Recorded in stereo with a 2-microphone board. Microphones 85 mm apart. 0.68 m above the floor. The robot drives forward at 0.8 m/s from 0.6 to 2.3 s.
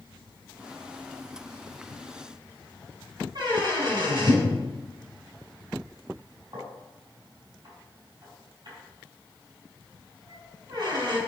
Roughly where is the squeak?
Right.